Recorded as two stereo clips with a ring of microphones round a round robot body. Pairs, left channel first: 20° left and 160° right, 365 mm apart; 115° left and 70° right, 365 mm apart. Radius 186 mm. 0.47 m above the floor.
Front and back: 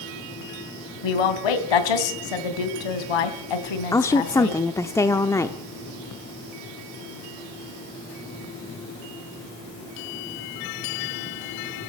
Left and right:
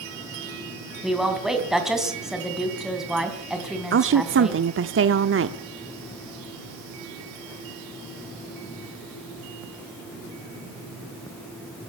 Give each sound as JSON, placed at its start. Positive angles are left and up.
{"t": 1.0, "sound": "a woman speaking", "azimuth_deg": 20, "distance_m": 3.0}
{"t": 3.9, "sound": "a woman speaking", "azimuth_deg": -55, "distance_m": 0.9}